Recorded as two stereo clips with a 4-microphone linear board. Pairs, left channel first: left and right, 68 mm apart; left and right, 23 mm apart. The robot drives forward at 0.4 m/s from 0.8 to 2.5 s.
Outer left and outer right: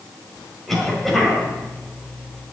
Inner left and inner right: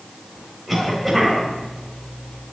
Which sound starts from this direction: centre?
A cough, at 0.7 s.